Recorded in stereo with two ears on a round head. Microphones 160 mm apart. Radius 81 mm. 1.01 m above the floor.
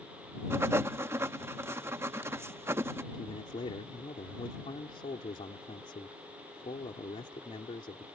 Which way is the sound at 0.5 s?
15° right (ahead or behind).